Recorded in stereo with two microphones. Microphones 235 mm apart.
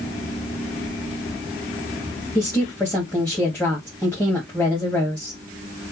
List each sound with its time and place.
2.4 s a woman speaking: 10° left (ahead or behind), 2 m